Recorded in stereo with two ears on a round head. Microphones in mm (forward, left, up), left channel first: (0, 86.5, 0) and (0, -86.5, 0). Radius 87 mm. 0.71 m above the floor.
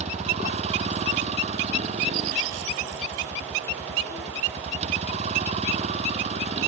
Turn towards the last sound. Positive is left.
turn(degrees=-35)  # may be behind; listen again after turning